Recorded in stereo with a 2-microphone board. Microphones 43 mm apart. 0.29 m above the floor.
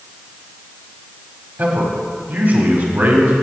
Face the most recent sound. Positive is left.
turn(degrees=-45)  # may be behind; listen again after turning